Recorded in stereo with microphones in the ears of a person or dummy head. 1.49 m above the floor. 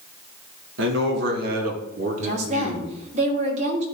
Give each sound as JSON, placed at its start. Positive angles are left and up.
{"t": 0.8, "sound": "a man speaking", "side_deg": -75, "distance_m": 2.0}
{"t": 2.2, "sound": "a woman speaking", "side_deg": -45, "distance_m": 3.5}